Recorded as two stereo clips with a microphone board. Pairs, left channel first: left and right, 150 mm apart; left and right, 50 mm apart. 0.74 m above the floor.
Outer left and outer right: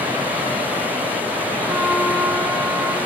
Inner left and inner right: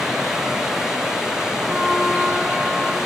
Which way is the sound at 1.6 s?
5° right (ahead or behind).